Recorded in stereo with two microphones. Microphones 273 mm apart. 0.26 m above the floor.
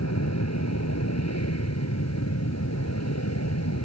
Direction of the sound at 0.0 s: 70° left (ahead or behind).